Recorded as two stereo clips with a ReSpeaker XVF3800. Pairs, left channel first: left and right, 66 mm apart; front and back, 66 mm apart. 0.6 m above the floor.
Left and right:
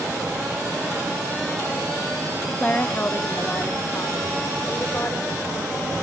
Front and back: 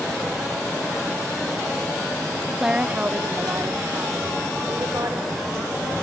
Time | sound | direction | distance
2.6 | a woman speaking | 110° left | 0.7 m